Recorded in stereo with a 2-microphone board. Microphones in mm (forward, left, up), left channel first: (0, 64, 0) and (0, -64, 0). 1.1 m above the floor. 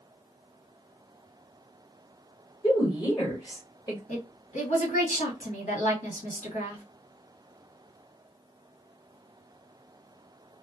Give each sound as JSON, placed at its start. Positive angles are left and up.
{"t": 2.6, "sound": "a woman speaking", "side_deg": 25, "distance_m": 1.6}
{"t": 4.1, "sound": "a woman speaking", "side_deg": 70, "distance_m": 1.6}